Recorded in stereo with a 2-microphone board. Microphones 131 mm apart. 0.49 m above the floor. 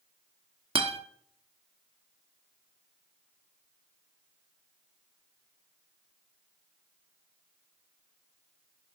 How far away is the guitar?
About 1.4 m.